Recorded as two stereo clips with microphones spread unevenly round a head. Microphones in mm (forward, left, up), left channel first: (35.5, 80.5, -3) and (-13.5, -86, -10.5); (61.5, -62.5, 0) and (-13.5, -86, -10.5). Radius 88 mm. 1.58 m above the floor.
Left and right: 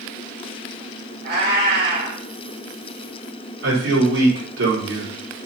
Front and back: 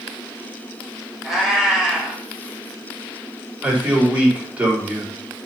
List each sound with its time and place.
1.2 s a cat meowing: 75° right, 3.5 m
3.6 s a man speaking: 90° right, 4 m